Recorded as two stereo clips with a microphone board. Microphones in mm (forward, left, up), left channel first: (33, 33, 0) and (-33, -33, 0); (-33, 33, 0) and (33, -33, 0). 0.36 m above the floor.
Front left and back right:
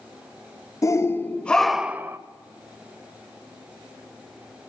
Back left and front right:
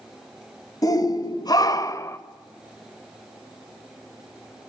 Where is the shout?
95° left, 1.6 m; by 2.2 s straight behind, 1.1 m.